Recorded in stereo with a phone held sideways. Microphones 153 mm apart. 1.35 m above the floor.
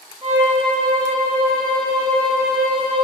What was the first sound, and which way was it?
A violin, 40° right (ahead or behind).